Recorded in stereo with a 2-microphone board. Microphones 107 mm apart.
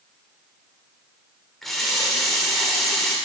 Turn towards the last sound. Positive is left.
turn(degrees=0)  # may be behind; listen again after turning